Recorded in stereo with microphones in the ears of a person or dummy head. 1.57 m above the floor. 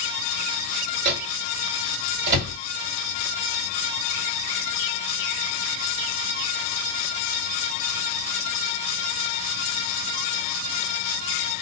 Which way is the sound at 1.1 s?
60° right (ahead or behind).